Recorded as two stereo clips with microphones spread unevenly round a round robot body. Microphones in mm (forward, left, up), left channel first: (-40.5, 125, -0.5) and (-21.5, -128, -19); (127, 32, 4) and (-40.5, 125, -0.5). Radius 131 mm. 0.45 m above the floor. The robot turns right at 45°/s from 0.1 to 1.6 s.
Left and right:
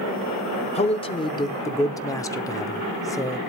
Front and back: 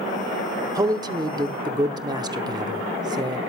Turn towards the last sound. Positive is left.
turn(degrees=160)